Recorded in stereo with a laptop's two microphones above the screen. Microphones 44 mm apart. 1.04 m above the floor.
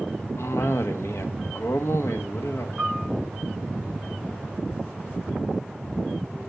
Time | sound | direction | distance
0.4 | a cough | 70° left (ahead or behind) | 1.6 m
2.8 | a piano | 10° right (ahead or behind) | 8 m